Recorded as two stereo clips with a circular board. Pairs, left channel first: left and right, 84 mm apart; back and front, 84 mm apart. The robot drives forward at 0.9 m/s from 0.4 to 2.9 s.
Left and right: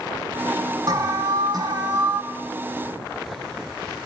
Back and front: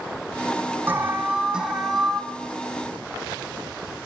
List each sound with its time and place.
0.9 s an alarm: 60° right, 2.5 m; by 2.2 s 95° right, 2.5 m